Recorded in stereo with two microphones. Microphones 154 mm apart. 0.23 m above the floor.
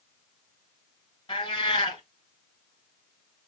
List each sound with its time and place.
1.3 s a cat meowing: 30° left (ahead or behind), 1.6 m